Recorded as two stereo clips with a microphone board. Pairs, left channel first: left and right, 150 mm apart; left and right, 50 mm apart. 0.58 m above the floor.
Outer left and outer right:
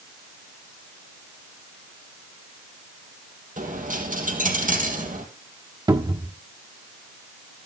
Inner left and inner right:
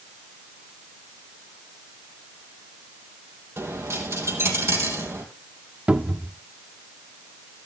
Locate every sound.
3.6 s a dropped coin: 60° right (ahead or behind), 3 m
5.9 s a cupboard door: 30° right (ahead or behind), 1.0 m